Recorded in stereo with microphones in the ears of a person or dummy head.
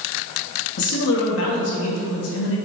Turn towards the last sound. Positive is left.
turn(degrees=85)